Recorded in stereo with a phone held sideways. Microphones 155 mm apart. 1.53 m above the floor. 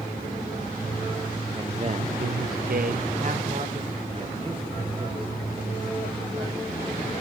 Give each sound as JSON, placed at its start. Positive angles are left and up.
{"t": 1.6, "sound": "a man speaking", "side_deg": -25, "distance_m": 1.0}